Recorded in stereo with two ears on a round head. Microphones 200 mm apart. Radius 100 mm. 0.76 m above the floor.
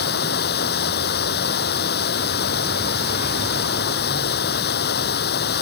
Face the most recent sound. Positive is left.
turn(degrees=45)  # may be behind; listen again after turning